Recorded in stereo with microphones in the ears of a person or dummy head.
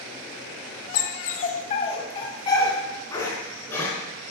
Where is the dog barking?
55° left (ahead or behind), 1.6 m; by 3.9 s 15° left (ahead or behind), 5 m.